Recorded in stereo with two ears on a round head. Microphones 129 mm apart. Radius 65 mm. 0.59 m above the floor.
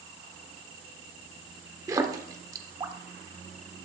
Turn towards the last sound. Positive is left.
turn(degrees=-25)  # may be behind; listen again after turning